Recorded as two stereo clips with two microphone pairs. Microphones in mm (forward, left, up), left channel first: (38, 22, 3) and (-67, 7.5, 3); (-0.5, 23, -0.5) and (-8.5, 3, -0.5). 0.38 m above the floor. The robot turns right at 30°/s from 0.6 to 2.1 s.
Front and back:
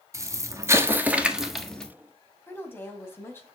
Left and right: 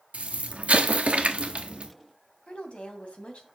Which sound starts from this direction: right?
An explosion, at 0.1 s.